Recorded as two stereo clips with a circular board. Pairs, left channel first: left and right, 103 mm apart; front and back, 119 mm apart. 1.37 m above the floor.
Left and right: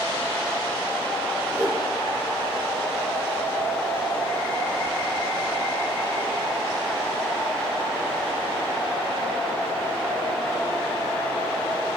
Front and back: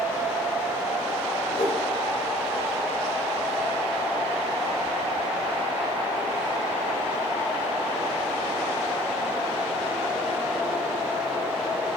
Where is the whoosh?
30° right, 3 m.